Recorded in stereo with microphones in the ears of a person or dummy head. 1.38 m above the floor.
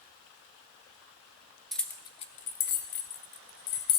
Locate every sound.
1.7 s keys jangling: centre (ahead or behind), 0.6 m; by 4.0 s 75° left (ahead or behind), 1.5 m